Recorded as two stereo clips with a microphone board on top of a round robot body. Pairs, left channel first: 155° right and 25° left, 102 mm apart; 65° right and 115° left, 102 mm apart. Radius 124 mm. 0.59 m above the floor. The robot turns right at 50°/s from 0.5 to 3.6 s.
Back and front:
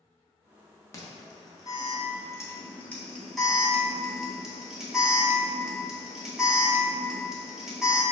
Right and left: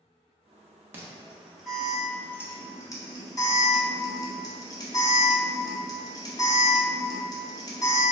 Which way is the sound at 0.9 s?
170° left.